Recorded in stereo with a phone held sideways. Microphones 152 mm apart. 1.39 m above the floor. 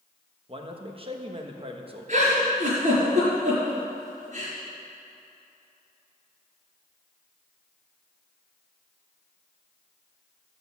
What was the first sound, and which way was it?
A man speaking, 35° right (ahead or behind).